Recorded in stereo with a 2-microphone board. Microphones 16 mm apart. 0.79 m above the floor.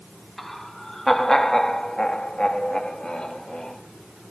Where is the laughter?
5° left (ahead or behind), 1.8 m; by 3.8 s 65° left (ahead or behind), 2.5 m.